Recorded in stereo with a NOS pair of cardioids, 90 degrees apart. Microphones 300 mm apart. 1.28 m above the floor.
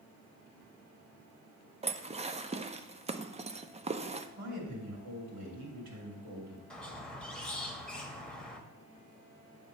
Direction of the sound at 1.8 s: 20° right.